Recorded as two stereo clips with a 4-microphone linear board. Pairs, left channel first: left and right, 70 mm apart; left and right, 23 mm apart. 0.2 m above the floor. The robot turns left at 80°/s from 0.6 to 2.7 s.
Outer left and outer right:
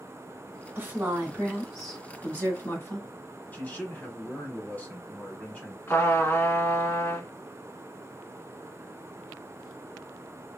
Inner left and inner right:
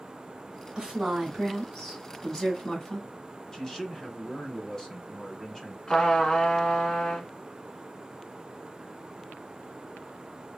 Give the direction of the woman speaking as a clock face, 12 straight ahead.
3 o'clock.